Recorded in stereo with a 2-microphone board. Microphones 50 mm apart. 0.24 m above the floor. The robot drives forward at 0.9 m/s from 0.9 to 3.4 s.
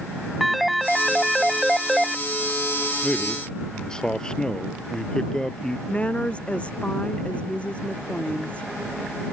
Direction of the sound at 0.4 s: Centre (ahead or behind).